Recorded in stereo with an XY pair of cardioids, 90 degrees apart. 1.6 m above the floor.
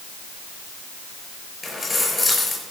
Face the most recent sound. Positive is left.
turn(degrees=30)